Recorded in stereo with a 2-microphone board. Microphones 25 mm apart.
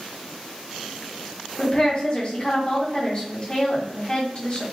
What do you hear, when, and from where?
1.6 s a woman speaking: 40° left (ahead or behind), 1.0 m